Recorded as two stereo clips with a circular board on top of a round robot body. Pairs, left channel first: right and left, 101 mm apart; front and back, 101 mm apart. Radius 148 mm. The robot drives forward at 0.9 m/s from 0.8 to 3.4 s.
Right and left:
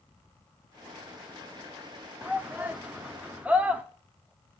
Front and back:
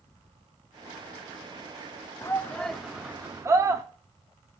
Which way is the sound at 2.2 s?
25° left.